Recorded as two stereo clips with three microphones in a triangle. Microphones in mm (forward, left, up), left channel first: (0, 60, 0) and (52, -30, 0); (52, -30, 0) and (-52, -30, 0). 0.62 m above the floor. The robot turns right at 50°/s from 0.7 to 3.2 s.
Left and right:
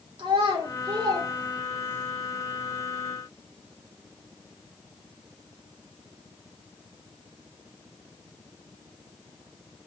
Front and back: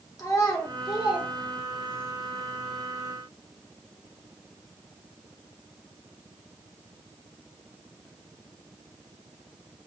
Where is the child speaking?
45° right, 0.9 m; by 2.1 s 25° left, 0.9 m.